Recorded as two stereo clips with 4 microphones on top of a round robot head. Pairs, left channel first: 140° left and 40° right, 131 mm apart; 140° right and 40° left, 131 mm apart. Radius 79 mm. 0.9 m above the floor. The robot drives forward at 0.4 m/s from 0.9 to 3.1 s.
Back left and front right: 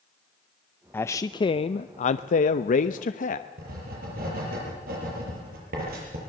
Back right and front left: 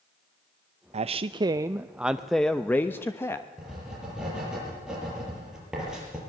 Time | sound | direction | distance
0.9 | a man speaking | 65° left | 0.5 m
3.6 | writing | 45° right | 7.5 m